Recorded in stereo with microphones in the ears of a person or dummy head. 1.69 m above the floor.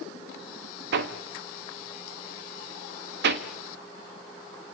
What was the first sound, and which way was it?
Hammering, 55° right (ahead or behind).